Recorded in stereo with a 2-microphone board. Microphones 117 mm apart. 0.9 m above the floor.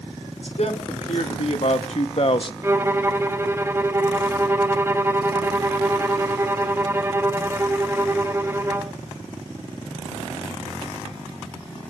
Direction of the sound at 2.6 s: 20° right (ahead or behind).